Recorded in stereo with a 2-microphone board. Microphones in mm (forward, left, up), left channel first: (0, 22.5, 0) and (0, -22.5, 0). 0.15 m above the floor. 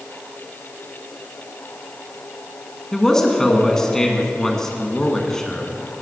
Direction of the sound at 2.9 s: 15° left (ahead or behind).